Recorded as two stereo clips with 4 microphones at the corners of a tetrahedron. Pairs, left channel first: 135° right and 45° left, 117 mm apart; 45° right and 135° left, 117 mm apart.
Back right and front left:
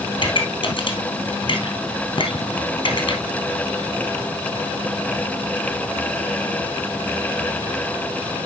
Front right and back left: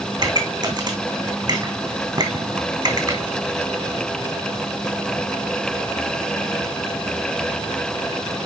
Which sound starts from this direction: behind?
A pop, at 0.2 s.